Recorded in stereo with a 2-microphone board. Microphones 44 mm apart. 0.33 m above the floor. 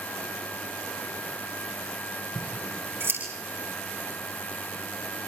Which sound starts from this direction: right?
Scissors, at 2.4 s.